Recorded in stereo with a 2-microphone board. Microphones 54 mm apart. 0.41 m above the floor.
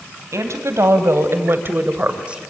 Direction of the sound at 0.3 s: 65° right (ahead or behind).